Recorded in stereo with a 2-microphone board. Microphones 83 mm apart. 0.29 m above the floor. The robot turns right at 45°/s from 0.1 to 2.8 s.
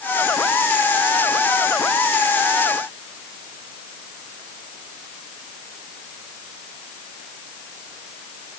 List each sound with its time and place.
Only background noise.